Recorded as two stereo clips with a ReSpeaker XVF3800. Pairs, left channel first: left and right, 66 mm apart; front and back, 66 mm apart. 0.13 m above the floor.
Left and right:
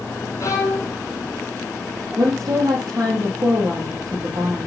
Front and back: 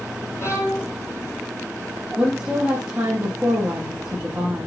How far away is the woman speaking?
About 5 m.